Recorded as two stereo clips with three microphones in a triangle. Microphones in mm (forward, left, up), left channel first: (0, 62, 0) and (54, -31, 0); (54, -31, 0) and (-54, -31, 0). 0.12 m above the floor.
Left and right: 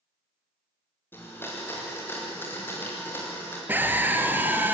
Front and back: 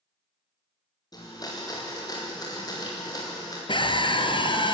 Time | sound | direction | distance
1.1 | a blender | 50° left | 6.5 m
3.7 | a scream | 5° left | 1.9 m